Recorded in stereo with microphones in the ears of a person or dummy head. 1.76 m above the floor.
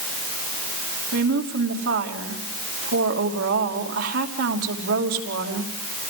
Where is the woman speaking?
70° right (ahead or behind), 2.5 m.